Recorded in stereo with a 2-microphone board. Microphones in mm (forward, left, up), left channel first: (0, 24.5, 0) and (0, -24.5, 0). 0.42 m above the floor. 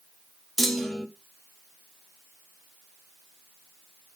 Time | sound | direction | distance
0.6 | a clunk | 5° left (ahead or behind) | 1.4 m